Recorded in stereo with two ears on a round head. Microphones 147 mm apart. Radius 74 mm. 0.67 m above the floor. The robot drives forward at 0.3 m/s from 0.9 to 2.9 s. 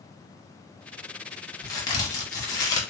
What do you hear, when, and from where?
1.6 s a crack: 25° left (ahead or behind), 1.0 m; by 2.8 s 20° left (ahead or behind), 1.0 m